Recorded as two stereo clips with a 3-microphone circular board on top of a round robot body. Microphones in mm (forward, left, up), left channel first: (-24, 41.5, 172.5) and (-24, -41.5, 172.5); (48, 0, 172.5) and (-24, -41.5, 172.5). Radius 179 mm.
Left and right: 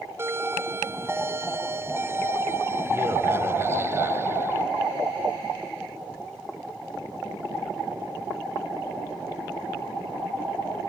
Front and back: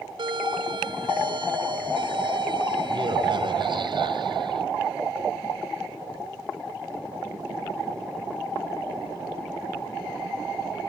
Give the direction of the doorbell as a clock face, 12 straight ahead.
5 o'clock.